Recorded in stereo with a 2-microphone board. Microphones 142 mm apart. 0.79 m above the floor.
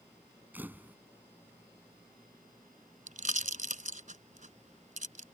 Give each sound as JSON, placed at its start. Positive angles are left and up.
{"t": 0.5, "sound": "a camera shutter", "side_deg": -15}
{"t": 3.1, "sound": "a pop", "side_deg": -65}